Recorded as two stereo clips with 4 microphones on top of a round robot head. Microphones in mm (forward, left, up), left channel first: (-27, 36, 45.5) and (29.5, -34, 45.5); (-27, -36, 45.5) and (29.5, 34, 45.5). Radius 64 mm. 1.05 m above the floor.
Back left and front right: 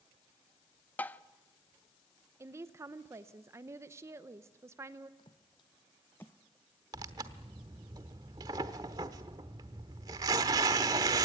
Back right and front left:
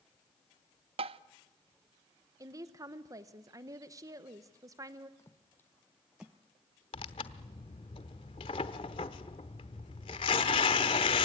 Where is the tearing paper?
100° right, 0.9 m.